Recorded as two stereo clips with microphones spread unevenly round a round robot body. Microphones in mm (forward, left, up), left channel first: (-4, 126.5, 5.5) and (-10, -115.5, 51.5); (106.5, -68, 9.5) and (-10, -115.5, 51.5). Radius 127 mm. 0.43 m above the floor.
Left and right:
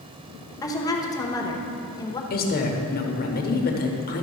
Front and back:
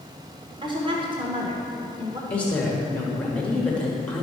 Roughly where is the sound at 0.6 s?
Behind left.